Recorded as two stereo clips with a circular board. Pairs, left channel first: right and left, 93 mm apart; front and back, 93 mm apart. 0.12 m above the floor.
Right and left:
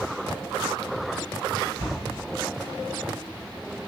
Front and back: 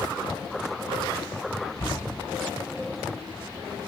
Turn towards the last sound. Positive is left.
turn(degrees=-120)